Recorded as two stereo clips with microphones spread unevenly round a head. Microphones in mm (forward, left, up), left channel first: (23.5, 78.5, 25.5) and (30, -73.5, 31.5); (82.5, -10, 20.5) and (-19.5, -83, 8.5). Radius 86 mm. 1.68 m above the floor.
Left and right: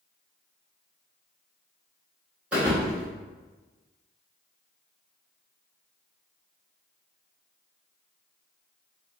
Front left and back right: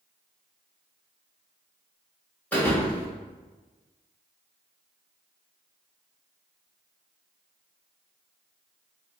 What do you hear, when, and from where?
2.5 s a thud: 15° right, 1.2 m